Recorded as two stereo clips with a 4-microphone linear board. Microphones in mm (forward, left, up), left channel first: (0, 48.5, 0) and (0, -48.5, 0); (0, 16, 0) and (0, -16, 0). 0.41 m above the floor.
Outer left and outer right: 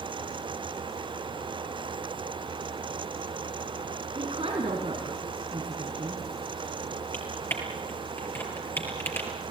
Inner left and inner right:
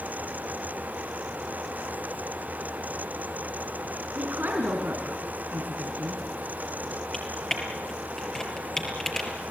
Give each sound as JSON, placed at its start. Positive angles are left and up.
{"t": 4.2, "sound": "a woman speaking", "side_deg": -70, "distance_m": 3.5}
{"t": 7.1, "sound": "typing on a keyboard", "side_deg": 20, "distance_m": 4.5}